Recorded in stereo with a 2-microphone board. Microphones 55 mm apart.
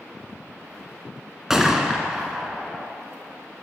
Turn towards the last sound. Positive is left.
turn(degrees=-10)  # may be behind; listen again after turning